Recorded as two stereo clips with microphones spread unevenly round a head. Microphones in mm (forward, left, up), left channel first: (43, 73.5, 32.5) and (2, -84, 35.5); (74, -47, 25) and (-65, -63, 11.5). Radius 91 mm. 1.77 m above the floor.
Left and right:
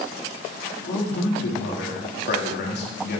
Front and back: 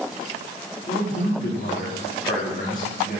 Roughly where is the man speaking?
Ahead left.